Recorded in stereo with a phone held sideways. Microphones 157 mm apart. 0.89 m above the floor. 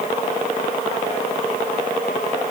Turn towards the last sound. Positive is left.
No sound to turn to.